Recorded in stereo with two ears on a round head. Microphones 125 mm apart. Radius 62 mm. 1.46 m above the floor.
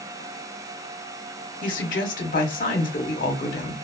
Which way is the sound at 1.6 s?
65° left (ahead or behind).